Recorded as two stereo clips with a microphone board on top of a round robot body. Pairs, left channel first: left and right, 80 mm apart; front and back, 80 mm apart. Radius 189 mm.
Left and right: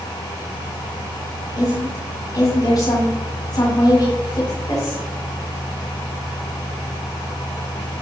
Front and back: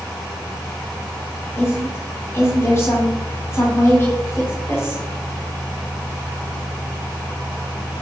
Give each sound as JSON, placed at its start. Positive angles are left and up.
{"t": 1.6, "sound": "a woman speaking", "azimuth_deg": 55, "distance_m": 4.0}